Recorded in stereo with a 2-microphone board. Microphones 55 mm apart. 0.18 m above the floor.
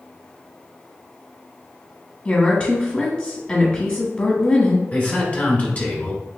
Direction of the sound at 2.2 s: 25° left (ahead or behind).